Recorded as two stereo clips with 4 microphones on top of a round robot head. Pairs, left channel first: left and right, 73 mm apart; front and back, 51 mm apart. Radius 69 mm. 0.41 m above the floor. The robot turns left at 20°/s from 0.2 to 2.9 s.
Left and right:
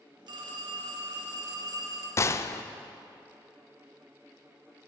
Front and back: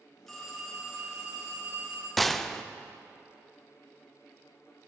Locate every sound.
0.3 s a phone ringing: 85° right, 2.0 m; by 2.1 s 120° right, 2.0 m
2.2 s a gunshot: 85° left, 0.5 m; by 2.6 s 75° left, 0.5 m